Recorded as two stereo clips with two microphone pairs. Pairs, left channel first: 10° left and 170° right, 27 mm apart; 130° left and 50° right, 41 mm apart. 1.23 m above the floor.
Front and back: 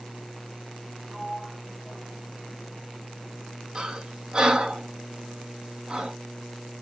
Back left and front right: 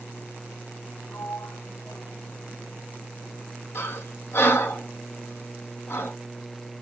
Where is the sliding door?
125° left, 1.5 m.